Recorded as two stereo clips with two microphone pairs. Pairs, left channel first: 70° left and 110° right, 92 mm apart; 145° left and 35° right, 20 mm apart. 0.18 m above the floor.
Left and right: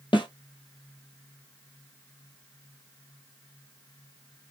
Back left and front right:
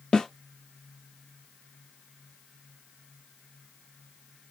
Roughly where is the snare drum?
Left.